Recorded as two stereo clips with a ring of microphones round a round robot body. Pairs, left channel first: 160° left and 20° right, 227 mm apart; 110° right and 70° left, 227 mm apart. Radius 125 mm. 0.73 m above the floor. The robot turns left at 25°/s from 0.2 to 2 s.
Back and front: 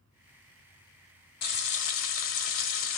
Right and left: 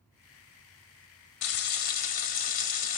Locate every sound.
1.4 s frying: 150° right, 1.3 m; by 3.0 s 165° right, 1.3 m